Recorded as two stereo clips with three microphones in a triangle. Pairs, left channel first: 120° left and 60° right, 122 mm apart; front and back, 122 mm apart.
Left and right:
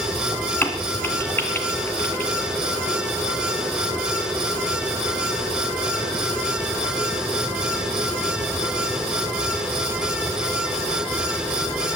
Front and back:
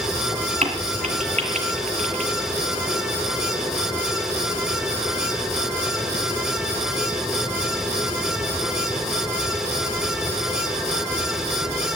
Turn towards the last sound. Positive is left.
turn(degrees=-170)